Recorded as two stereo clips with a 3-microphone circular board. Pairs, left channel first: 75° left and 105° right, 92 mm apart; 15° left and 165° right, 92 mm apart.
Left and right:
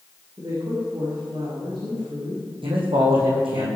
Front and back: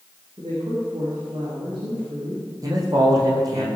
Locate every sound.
0.4 s a woman speaking: 135° right, 6 m
2.6 s a man speaking: 120° right, 5.5 m